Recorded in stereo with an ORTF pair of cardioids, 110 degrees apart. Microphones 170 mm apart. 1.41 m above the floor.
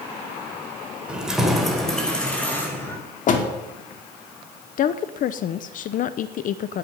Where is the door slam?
50° left, 2.5 m.